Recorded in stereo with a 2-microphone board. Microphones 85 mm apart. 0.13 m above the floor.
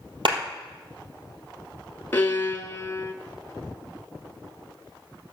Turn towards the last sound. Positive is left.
turn(degrees=25)  # may be behind; listen again after turning